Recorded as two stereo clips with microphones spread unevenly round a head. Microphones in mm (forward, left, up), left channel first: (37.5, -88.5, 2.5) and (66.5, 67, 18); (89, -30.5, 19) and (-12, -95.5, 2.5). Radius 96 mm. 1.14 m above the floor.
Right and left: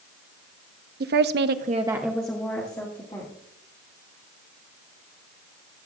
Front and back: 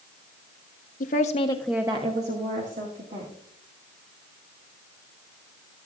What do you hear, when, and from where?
1.0 s a woman speaking: 60° left, 0.9 m; by 3.3 s 165° right, 2 m